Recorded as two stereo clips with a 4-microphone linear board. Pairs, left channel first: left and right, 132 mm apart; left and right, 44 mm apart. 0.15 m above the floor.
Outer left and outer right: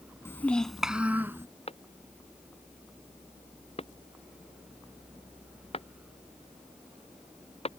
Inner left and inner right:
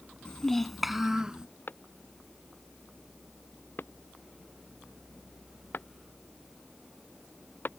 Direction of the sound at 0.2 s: 20° left (ahead or behind).